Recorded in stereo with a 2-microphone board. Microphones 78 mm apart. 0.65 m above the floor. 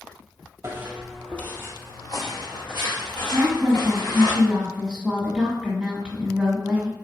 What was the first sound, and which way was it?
Footsteps, 30° right (ahead or behind).